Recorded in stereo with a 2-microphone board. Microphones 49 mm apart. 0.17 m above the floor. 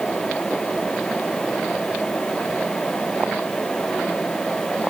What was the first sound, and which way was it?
Only background noise.